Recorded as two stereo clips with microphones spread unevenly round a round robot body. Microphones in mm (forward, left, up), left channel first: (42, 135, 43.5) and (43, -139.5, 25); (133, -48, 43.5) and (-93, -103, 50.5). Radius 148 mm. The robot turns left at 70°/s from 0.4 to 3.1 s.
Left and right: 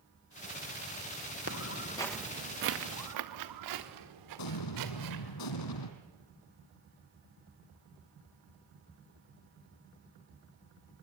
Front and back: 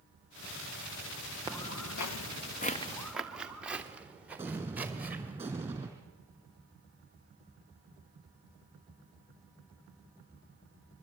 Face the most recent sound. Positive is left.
turn(degrees=110)